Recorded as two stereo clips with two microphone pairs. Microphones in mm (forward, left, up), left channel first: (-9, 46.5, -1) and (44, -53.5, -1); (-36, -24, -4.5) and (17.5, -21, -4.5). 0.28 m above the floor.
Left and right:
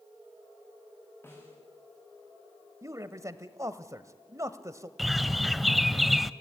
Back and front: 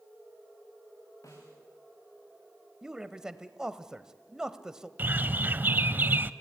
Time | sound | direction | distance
1.2 | a snare drum | 175° right | 7 m
2.8 | a man speaking | 65° right | 1.1 m
5.0 | a bird | 25° left | 0.6 m